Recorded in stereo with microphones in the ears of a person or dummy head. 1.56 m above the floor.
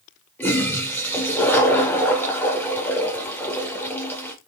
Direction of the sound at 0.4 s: 10° left (ahead or behind).